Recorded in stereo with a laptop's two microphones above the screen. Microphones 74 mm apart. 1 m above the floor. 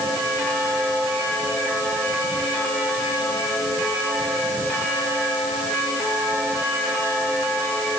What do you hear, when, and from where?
Only background noise.